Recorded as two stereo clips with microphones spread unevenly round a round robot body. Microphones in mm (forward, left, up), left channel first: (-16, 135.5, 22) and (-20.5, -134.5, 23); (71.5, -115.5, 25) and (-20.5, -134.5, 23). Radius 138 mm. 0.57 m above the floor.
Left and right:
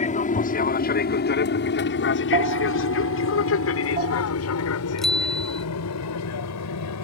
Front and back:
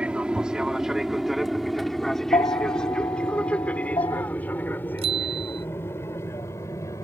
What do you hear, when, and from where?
0.0 s an aircraft: 120° left; by 7.0 s 80° left
2.3 s a bell: 25° right
5.0 s a bicycle bell: straight behind